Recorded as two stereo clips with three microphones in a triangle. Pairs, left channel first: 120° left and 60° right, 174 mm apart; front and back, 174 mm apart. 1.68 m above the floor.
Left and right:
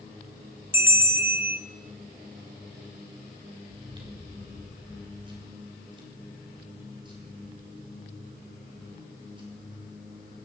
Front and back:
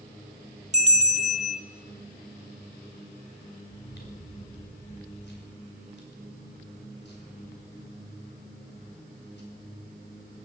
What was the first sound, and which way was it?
A bell, 135° right.